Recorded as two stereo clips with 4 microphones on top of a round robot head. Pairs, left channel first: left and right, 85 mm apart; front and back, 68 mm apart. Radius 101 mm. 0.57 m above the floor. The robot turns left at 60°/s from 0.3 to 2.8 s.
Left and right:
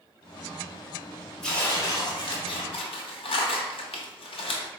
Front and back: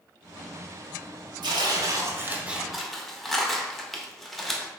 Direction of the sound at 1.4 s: 175° left.